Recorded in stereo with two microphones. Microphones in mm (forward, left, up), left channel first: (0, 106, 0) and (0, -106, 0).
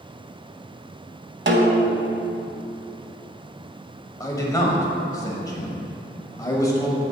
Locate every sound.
1.5 s a snare drum: 60° right (ahead or behind), 0.8 m
4.2 s a man speaking: 15° left (ahead or behind), 1.1 m